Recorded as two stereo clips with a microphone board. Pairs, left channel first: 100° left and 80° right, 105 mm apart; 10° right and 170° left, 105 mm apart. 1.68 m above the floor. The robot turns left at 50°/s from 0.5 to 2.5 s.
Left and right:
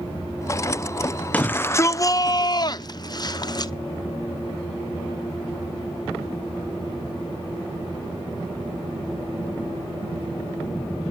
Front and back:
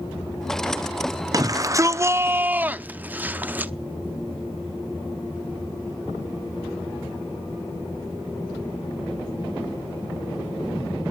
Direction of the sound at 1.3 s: 170° left.